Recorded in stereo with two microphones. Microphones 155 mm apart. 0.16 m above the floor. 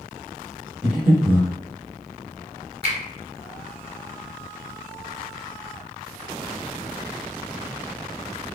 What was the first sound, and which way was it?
Breathing, 5° right (ahead or behind).